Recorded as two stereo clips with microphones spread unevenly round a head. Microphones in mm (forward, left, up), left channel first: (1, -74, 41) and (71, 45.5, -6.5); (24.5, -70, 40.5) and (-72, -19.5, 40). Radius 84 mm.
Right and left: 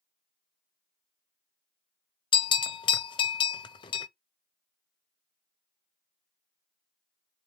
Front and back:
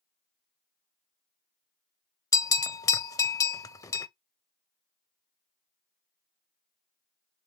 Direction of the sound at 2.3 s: 85° right.